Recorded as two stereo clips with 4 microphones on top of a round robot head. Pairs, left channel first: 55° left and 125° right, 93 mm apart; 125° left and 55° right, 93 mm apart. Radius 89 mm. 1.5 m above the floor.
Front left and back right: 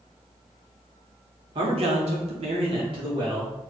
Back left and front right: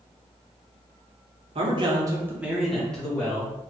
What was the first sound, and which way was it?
A man speaking, 85° right.